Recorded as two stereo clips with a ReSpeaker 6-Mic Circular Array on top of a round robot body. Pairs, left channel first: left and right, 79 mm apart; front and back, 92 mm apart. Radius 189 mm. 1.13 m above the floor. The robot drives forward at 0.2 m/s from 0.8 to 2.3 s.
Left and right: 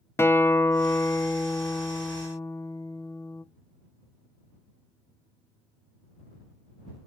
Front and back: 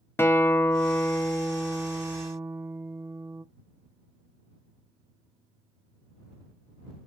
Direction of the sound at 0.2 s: 50° left.